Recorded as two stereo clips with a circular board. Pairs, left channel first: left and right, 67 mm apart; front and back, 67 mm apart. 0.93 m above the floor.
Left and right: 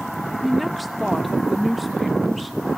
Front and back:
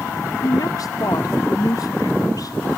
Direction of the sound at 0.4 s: Straight ahead.